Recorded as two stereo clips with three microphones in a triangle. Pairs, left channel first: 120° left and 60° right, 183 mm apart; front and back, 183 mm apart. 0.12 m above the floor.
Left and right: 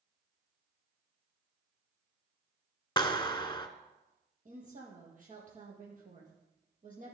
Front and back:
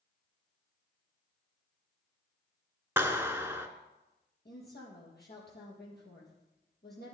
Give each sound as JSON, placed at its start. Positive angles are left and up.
{"t": 3.0, "sound": "a clap", "azimuth_deg": 120, "distance_m": 1.0}
{"t": 4.5, "sound": "a woman speaking", "azimuth_deg": -20, "distance_m": 4.5}